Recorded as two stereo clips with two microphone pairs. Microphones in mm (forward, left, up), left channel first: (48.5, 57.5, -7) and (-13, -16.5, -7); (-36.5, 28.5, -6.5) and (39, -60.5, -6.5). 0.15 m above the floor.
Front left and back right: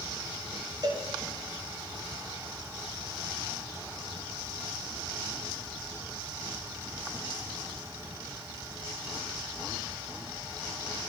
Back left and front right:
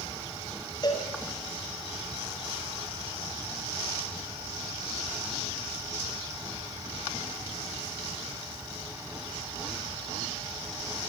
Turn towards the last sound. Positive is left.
turn(degrees=180)